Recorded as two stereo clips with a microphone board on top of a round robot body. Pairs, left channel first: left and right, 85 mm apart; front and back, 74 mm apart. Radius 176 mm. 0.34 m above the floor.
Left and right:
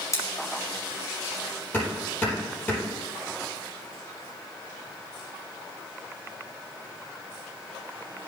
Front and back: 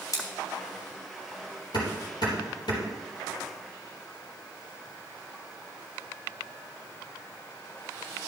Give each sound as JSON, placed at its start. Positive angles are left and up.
{"t": 0.1, "sound": "scissors", "azimuth_deg": 35, "distance_m": 3.5}
{"t": 1.7, "sound": "hammering", "azimuth_deg": 15, "distance_m": 4.5}